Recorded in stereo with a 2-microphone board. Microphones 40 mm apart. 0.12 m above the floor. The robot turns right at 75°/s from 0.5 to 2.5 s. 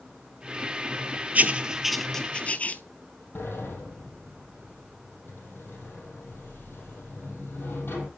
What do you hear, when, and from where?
1.4 s writing: 40° right (ahead or behind), 0.7 m; by 2.8 s 35° left (ahead or behind), 0.7 m
3.4 s a sliding door: 65° left (ahead or behind), 3.5 m